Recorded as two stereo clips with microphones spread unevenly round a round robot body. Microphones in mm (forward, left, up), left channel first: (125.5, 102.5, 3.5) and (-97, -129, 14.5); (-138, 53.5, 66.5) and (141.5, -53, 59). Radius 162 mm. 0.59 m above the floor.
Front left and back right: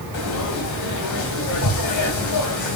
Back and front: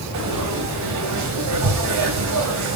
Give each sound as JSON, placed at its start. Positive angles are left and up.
{"t": 0.1, "sound": "frying", "azimuth_deg": 10, "distance_m": 3.0}